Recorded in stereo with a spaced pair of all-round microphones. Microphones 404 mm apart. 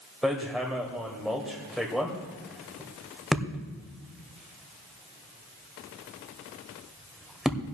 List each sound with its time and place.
0.2 s hammering: centre (ahead or behind), 1.9 m